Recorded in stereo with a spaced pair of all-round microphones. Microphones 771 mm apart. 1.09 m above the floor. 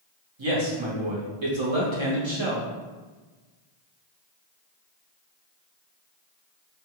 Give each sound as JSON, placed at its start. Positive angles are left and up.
{"t": 0.4, "sound": "a man speaking", "side_deg": -40, "distance_m": 0.9}